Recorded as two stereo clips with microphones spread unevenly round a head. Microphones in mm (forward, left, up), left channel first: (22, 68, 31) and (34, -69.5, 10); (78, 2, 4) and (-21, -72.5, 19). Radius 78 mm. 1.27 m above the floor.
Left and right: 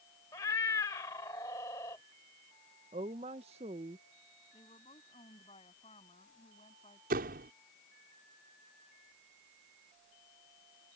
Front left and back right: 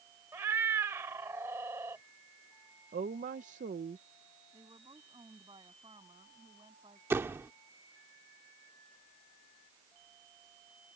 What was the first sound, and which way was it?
A cat meowing, 155° left.